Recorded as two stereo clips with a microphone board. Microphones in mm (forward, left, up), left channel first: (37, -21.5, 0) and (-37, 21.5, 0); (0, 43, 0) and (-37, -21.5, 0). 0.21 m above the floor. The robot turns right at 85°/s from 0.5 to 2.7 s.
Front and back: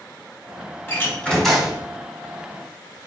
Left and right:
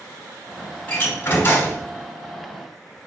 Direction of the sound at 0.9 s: 5° left.